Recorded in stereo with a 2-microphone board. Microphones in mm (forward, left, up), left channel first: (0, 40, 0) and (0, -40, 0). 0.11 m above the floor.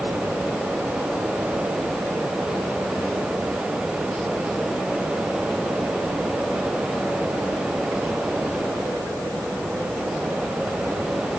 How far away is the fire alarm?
I don't hear a fire alarm.